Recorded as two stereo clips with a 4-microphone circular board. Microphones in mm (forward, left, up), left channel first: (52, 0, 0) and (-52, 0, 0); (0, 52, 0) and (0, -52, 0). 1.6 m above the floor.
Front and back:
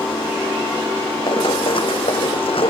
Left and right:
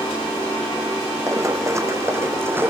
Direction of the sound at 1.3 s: 35° right.